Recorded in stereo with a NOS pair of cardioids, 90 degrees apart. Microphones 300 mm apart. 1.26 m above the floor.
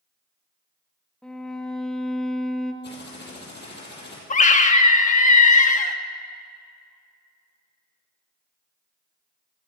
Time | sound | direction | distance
1.2 | a violin | straight ahead | 1.5 m
2.8 | typing on a keyboard | 35° left | 7 m
4.3 | a scream | 25° left | 1.8 m